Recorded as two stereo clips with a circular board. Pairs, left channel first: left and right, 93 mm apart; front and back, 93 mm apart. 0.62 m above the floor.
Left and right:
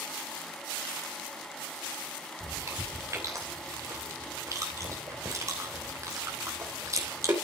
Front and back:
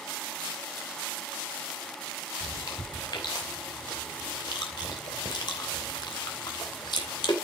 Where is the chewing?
35° right, 3 m.